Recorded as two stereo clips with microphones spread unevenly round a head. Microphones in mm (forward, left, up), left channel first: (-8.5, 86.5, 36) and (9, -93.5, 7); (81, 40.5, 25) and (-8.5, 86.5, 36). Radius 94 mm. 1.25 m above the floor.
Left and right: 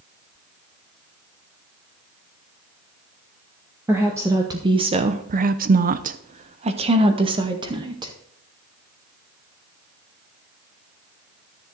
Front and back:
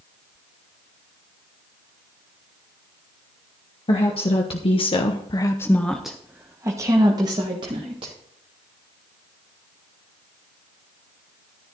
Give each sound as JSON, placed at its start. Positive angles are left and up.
{"t": 3.9, "sound": "a woman speaking", "azimuth_deg": -10, "distance_m": 1.7}